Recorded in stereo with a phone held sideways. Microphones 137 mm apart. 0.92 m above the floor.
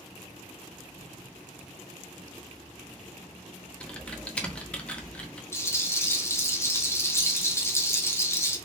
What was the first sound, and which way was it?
Typing on a keyboard, 10° left (ahead or behind).